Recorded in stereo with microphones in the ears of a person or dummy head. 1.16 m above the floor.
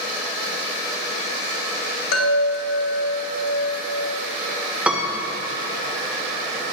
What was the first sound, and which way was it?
A chime, 60° left (ahead or behind).